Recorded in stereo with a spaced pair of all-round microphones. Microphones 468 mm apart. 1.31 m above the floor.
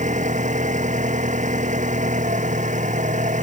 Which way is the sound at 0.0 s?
15° right (ahead or behind).